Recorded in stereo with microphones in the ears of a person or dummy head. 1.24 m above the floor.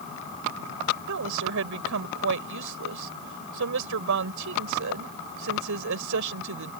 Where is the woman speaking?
70° right (ahead or behind).